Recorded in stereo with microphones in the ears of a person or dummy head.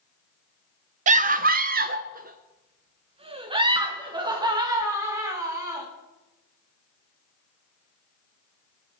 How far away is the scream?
About 0.7 m.